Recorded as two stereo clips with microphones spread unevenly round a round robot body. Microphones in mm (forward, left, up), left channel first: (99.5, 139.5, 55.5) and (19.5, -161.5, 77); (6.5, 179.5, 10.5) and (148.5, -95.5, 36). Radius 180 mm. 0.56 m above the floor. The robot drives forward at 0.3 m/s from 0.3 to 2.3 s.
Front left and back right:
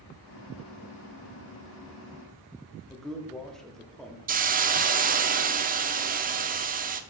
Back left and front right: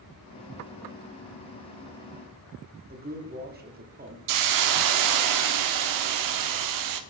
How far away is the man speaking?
About 1.2 m.